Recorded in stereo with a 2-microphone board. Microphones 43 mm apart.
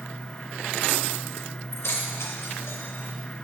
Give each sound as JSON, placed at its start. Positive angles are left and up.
{"t": 1.7, "sound": "keys jangling", "side_deg": 75, "distance_m": 2.0}